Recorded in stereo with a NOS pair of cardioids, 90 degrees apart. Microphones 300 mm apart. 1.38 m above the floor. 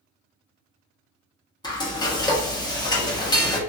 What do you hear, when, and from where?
1.6 s frying: 15° left, 0.9 m